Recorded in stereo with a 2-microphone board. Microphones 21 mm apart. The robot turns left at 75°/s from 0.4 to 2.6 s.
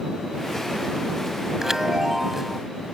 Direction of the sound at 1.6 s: 20° right (ahead or behind).